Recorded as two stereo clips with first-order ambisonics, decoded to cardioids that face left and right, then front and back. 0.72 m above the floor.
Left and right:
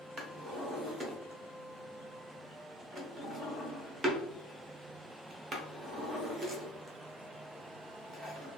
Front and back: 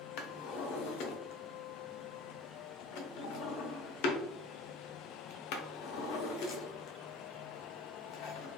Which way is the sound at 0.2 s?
15° right.